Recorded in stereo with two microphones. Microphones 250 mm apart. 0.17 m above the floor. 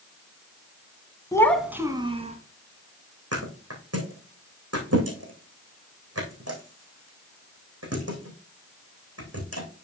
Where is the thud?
80° right, 3.5 m.